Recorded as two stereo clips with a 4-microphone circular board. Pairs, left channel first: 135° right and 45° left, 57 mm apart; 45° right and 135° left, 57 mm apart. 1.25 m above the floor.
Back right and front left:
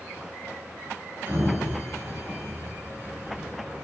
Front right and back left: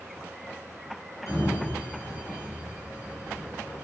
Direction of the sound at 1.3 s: 15° right.